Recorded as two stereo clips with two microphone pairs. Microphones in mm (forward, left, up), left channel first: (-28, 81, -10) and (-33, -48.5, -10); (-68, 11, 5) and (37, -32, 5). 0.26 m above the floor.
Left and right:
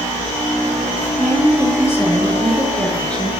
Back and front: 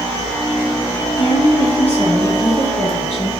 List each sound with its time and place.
1.2 s a woman speaking: 150° left, 3.5 m; by 3.3 s 170° left, 4 m